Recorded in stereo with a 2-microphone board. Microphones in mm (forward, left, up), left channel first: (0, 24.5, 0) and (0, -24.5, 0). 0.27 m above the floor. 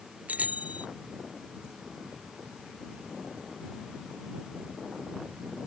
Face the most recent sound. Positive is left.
turn(degrees=-30)  # may be behind; listen again after turning